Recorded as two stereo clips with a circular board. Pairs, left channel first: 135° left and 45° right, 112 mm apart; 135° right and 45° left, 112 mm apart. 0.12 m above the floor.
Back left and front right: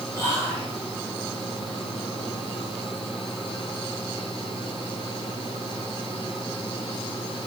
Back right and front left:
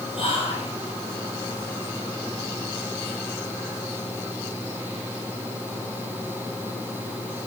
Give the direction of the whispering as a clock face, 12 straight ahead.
5 o'clock.